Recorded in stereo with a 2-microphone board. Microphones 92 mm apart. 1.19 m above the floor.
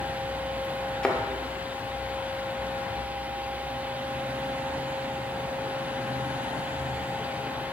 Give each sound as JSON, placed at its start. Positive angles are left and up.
{"t": 1.0, "sound": "a thud", "side_deg": 10, "distance_m": 0.9}